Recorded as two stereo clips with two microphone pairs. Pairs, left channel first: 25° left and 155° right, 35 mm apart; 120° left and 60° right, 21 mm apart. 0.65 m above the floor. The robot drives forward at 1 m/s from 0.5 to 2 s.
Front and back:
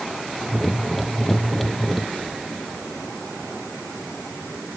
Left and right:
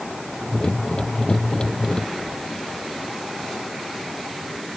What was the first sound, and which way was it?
Only background noise.